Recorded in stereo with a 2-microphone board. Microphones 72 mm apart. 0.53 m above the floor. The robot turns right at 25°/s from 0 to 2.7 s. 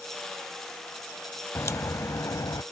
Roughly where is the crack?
Left.